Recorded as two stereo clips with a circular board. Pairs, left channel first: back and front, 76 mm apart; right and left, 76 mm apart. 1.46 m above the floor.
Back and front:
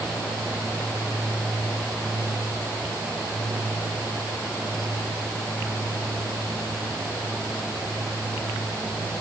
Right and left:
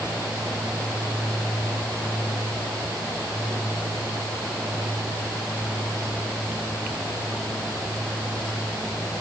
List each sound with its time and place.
Only background noise.